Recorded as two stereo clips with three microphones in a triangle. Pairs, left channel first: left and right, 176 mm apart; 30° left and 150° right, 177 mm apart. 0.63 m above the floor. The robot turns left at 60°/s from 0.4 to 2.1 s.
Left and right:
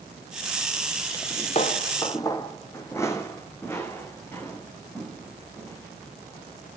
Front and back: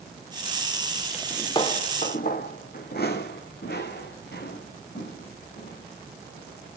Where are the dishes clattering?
No dishes clattering in this recording.